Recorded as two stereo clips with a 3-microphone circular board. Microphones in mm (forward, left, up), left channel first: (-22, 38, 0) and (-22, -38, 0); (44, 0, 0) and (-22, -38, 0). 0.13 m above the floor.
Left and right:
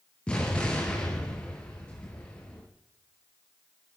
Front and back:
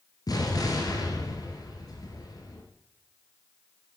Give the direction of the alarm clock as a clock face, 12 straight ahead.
No alarm clock in this recording.